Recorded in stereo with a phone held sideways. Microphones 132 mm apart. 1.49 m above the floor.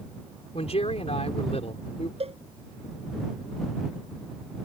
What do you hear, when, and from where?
0.5 s a man speaking: 55° left (ahead or behind)
2.2 s a cowbell: 50° right (ahead or behind)